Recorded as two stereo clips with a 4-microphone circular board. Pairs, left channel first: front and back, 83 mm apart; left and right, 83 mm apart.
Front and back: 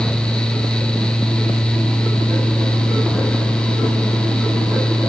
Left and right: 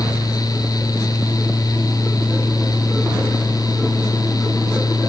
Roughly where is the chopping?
No chopping in this recording.